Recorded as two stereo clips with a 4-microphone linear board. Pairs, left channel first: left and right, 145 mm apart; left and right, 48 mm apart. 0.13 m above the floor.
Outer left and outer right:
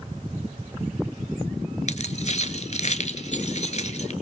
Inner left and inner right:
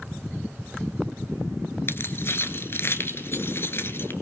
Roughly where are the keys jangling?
Left.